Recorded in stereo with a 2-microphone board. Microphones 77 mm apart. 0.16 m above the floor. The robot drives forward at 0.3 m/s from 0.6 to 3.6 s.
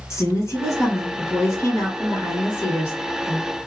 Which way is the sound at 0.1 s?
40° left (ahead or behind).